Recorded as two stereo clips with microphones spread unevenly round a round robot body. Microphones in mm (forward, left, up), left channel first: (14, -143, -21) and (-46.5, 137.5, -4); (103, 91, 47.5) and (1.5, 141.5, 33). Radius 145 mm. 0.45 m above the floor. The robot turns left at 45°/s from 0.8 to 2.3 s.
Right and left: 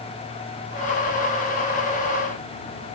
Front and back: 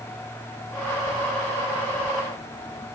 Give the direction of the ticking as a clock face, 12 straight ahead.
I don't hear ticking.